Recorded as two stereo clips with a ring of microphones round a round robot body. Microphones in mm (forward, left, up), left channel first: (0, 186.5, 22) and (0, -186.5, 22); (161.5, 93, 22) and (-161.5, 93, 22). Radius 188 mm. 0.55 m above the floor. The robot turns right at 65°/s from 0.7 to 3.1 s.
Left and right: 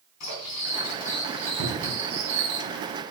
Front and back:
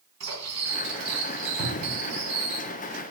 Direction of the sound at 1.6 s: 55° right.